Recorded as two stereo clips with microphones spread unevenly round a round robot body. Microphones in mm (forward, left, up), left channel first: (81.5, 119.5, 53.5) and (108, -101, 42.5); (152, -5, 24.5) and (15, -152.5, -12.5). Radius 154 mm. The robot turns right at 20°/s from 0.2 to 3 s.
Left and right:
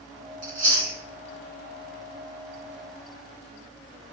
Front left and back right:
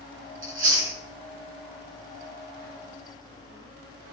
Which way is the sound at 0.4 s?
110° right.